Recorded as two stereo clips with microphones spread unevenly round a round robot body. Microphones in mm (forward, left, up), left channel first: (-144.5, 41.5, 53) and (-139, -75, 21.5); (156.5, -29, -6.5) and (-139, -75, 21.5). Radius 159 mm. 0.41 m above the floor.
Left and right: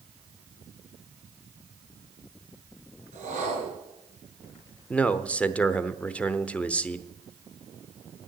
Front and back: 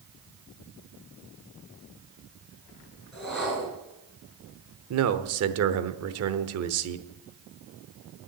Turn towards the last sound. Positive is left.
turn(degrees=-175)